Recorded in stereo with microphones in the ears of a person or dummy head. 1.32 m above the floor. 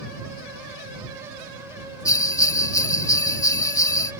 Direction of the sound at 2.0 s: 10° left (ahead or behind).